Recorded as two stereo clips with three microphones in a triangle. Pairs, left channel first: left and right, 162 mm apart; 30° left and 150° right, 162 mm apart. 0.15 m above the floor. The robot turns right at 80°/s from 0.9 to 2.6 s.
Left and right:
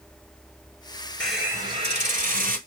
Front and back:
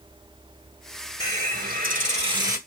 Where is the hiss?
170° left, 1.1 m; by 2.6 s 80° right, 1.1 m.